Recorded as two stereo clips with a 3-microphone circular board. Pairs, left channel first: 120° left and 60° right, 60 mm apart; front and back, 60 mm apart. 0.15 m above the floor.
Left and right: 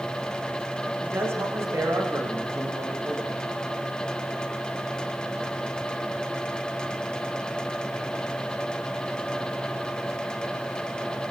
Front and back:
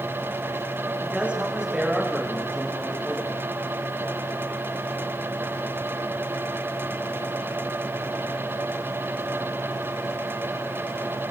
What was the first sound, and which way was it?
A man speaking, 110° right.